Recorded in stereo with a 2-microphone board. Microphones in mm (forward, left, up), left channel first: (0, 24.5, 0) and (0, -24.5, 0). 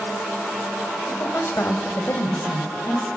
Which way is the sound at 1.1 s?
45° left (ahead or behind).